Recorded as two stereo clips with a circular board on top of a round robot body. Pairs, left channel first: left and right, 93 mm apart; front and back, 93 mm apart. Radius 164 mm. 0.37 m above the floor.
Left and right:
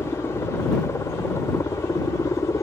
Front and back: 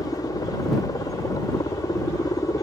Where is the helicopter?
35° left; by 2.6 s 40° left.